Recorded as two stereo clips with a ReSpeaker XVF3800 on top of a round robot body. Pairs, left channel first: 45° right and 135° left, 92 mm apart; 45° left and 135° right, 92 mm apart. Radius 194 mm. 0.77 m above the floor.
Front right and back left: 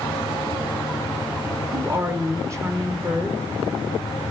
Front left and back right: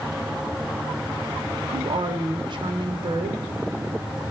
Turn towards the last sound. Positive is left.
turn(degrees=-170)